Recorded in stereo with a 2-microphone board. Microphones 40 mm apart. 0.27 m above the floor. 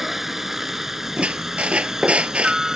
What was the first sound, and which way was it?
A helicopter, 5° right (ahead or behind).